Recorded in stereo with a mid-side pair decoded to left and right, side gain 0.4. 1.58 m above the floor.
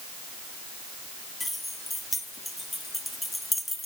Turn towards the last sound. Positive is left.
turn(degrees=10)